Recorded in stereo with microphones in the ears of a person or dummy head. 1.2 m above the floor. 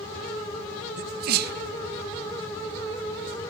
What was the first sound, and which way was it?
A sneeze, 60° right (ahead or behind).